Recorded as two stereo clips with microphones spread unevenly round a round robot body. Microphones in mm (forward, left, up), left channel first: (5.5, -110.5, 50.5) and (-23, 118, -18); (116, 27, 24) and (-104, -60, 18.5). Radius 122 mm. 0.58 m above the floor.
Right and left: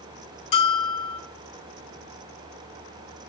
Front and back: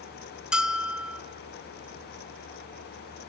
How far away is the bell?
About 1.5 m.